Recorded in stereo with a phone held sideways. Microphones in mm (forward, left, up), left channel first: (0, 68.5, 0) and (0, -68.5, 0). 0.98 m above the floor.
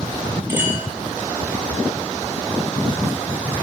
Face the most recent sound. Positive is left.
turn(degrees=-20)  # may be behind; listen again after turning